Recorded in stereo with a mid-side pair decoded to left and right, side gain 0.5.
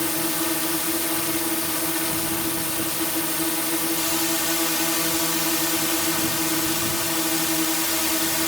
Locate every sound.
0.0 s a drone: 15° left